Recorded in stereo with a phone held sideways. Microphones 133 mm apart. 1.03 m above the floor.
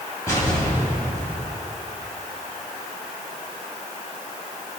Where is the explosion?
20° left (ahead or behind), 3.5 m.